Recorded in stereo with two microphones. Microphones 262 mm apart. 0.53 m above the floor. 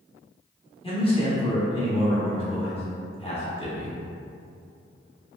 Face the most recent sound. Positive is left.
turn(degrees=20)  # may be behind; listen again after turning